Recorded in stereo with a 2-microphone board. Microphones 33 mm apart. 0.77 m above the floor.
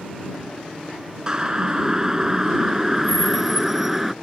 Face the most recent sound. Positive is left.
turn(degrees=-5)  # may be behind; listen again after turning